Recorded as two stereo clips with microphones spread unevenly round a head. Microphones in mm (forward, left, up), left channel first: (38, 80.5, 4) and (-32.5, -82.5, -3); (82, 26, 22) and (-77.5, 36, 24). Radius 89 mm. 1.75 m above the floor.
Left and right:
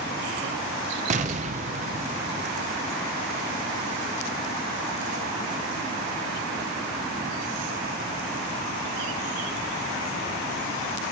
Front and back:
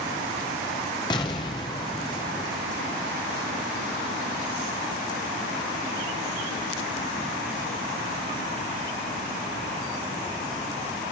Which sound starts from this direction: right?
An explosion, at 1.1 s.